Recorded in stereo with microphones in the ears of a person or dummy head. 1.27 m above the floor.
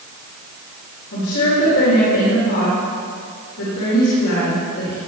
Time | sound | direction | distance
1.1 | a woman speaking | 75° left (ahead or behind) | 4.5 m